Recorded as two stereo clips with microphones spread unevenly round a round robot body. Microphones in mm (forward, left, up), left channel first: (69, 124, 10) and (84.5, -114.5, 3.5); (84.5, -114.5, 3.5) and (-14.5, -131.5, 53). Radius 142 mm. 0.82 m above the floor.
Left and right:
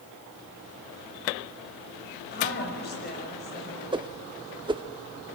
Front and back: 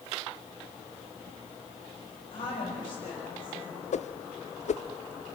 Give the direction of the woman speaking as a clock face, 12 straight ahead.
10 o'clock.